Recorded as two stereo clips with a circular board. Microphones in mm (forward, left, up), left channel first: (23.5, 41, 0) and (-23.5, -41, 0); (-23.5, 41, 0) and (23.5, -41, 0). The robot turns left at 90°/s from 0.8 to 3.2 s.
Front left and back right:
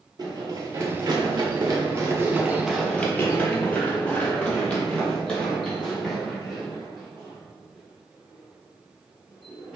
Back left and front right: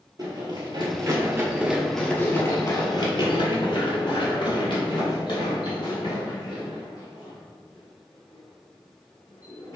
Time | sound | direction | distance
0.2 | running footsteps | 95° right | 1.7 m